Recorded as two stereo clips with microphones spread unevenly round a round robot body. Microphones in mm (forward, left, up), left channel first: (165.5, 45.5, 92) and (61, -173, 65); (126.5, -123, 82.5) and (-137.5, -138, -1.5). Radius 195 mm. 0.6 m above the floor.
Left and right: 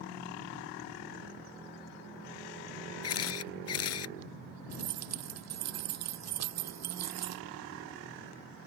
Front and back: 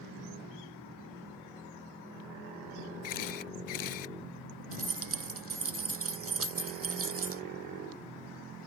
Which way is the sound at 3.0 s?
45° left.